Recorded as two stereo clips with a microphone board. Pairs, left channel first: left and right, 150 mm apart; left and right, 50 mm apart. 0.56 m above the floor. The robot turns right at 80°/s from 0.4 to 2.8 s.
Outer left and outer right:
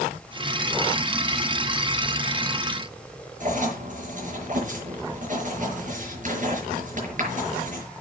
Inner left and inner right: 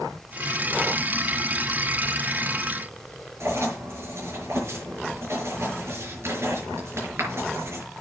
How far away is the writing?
About 5.5 m.